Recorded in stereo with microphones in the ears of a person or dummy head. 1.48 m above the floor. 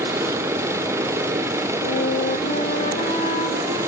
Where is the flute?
45° left (ahead or behind), 2.5 m.